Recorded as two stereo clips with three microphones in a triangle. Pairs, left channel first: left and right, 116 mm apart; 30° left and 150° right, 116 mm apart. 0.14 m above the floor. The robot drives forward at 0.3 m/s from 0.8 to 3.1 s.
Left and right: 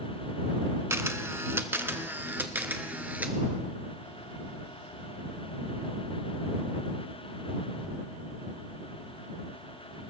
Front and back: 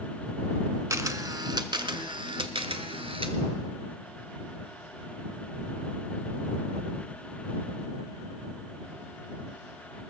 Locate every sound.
0.9 s a camera shutter: 130° right, 0.6 m; by 3.4 s 165° right, 1.1 m